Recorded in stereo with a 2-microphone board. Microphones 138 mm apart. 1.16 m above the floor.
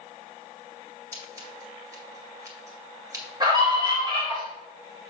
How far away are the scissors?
About 2.0 m.